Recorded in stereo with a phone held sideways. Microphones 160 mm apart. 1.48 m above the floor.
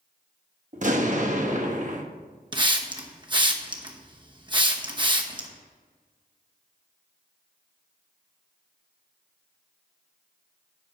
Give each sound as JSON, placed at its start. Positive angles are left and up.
{"t": 0.7, "sound": "an explosion", "side_deg": -50, "distance_m": 1.1}
{"t": 2.5, "sound": "a hiss", "side_deg": -30, "distance_m": 0.9}